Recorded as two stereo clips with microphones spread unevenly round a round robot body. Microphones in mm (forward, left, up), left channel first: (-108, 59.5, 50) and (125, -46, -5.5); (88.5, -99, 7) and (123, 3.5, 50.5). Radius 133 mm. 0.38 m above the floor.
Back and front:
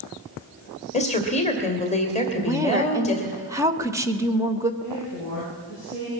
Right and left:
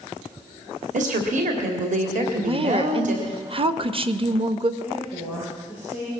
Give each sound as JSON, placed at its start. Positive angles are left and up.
{"t": 0.9, "sound": "a woman speaking", "azimuth_deg": 85, "distance_m": 1.9}
{"t": 2.4, "sound": "a woman speaking", "azimuth_deg": 30, "distance_m": 1.0}
{"t": 4.8, "sound": "a woman speaking", "azimuth_deg": -5, "distance_m": 9.0}